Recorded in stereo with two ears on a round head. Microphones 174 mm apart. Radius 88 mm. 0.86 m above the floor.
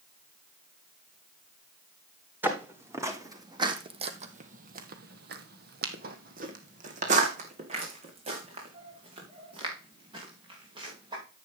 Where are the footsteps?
10° right (ahead or behind), 2.5 m; by 11.2 s 25° right (ahead or behind), 6 m.